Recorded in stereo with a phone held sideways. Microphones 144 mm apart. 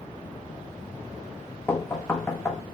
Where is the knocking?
15° left (ahead or behind), 0.8 m.